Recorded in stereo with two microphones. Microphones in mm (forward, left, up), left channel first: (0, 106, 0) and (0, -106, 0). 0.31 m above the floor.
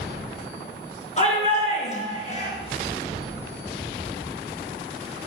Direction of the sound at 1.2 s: 30° left (ahead or behind).